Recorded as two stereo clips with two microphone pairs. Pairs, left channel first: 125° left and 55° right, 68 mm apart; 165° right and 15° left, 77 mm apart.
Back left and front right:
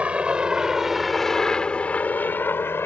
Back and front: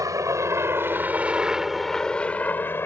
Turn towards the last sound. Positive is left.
turn(degrees=155)